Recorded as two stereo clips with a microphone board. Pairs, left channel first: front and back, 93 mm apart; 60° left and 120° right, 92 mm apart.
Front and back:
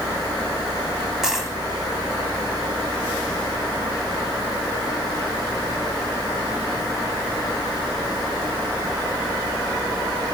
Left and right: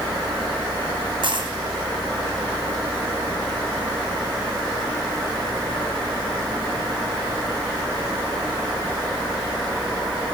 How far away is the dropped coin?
About 1.9 m.